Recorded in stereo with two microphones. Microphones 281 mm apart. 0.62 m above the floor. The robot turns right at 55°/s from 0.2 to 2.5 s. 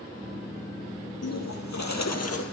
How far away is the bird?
About 4 m.